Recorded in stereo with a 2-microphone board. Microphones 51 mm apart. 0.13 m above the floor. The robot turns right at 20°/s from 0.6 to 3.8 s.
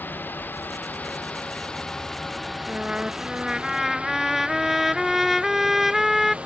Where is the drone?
40° left (ahead or behind); by 6.5 s 20° right (ahead or behind).